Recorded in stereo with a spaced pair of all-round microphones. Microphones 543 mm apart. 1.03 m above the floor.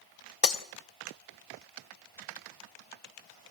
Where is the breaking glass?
80° left, 0.9 m.